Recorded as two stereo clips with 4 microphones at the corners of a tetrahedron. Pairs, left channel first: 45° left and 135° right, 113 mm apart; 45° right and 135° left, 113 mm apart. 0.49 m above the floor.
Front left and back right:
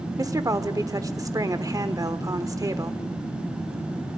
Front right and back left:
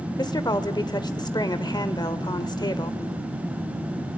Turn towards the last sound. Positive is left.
turn(degrees=-85)